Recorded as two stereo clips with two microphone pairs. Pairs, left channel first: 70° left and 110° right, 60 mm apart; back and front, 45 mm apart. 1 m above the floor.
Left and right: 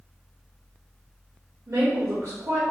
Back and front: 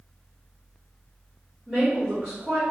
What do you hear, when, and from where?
1.7 s a woman speaking: 75° right, 2 m